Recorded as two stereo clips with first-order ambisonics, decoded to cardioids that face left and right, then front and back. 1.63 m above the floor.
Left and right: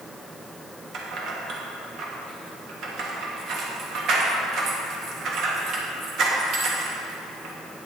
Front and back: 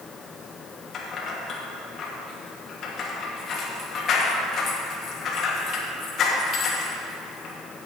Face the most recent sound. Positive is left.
turn(degrees=-50)